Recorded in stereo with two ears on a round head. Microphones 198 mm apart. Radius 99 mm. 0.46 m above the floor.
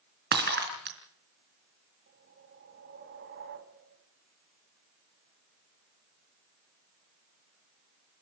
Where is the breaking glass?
50° right (ahead or behind), 3.5 m.